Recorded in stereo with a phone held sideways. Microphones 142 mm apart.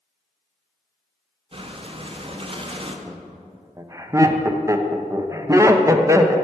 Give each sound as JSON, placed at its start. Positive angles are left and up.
{"t": 1.5, "sound": "breathing", "side_deg": -40, "distance_m": 0.5}
{"t": 3.1, "sound": "laughter", "side_deg": -20, "distance_m": 0.5}